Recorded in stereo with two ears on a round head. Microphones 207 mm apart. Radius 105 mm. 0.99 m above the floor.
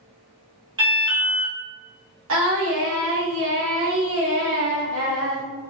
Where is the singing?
65° right (ahead or behind), 1.4 m.